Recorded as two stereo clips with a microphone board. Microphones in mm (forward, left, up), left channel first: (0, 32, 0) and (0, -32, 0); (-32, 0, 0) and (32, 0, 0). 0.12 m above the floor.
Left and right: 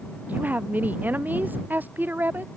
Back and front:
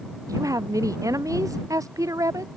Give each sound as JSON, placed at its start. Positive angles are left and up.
{"t": 0.3, "sound": "a woman speaking", "azimuth_deg": -25}